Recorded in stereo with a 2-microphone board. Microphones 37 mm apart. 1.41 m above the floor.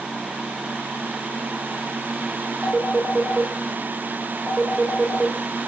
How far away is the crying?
No crying in this recording.